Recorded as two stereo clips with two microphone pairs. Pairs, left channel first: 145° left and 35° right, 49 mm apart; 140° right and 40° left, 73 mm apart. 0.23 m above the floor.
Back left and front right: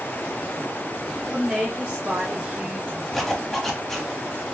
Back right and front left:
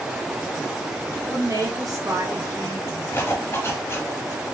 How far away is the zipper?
About 0.8 m.